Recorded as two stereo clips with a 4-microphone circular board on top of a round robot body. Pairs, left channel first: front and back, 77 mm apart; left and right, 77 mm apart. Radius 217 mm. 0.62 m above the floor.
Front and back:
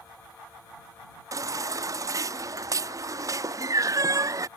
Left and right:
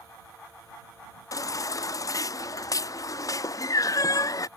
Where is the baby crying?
135° left.